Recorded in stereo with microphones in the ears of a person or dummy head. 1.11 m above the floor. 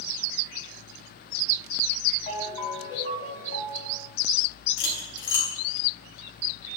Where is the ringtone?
30° left (ahead or behind), 6 m.